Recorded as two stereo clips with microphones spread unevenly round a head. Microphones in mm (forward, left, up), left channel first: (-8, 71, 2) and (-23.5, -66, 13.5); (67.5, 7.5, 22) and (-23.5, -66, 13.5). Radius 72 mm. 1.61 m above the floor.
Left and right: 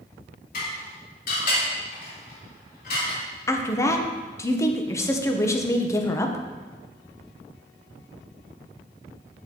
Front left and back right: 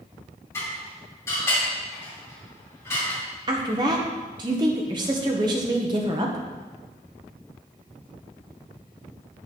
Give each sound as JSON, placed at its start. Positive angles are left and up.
{"t": 0.5, "sound": "dishes clattering", "azimuth_deg": 110, "distance_m": 3.5}
{"t": 3.5, "sound": "a woman speaking", "azimuth_deg": 155, "distance_m": 1.1}